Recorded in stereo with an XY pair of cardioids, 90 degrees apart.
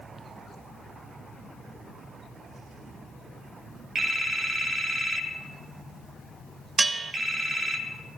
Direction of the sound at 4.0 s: 45° right.